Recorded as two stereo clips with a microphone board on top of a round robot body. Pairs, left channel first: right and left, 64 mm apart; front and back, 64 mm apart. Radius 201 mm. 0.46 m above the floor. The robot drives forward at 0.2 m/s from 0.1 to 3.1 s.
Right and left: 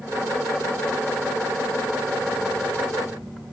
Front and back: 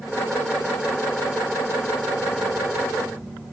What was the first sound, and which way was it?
Only background noise.